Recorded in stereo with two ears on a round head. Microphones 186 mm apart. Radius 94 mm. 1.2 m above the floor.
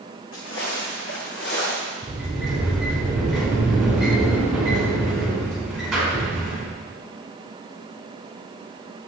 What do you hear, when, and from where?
0.3 s footsteps: 65° left (ahead or behind), 4 m; by 1.9 s 50° left (ahead or behind), 3.5 m
2.0 s a sliding door: centre (ahead or behind), 4.5 m